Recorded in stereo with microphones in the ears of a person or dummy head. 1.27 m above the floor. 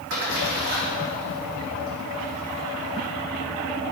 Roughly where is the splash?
Right.